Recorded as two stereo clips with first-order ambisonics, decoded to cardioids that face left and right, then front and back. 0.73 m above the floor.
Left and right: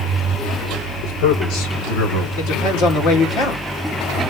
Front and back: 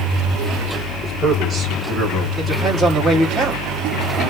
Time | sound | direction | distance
1.0 | a man speaking | 95° left | 3 m
2.4 | a woman speaking | 95° left | 2.5 m